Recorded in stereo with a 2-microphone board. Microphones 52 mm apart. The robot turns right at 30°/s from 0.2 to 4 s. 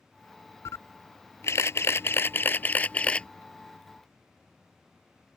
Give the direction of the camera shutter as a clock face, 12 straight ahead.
9 o'clock.